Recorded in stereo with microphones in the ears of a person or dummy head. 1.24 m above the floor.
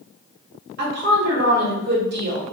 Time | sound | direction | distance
0.8 | a woman speaking | 55° right (ahead or behind) | 1.3 m